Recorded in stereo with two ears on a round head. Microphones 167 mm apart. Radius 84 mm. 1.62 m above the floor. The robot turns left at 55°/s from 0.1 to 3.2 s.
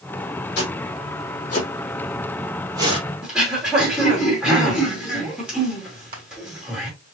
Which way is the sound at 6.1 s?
55° right (ahead or behind).